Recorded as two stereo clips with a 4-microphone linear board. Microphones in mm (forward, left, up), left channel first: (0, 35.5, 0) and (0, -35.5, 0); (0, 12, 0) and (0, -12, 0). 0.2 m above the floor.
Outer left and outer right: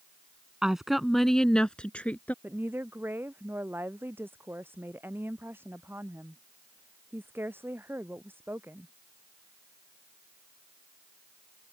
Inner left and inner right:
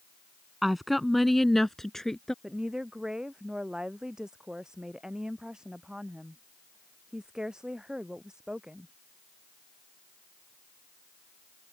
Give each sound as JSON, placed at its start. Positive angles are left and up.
{"t": 0.6, "sound": "a woman speaking", "side_deg": -10}
{"t": 2.4, "sound": "a woman speaking", "side_deg": -30}